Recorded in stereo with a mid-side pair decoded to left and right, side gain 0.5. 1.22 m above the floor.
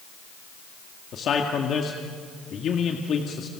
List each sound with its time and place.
1.1 s a man speaking: 55° left, 2.0 m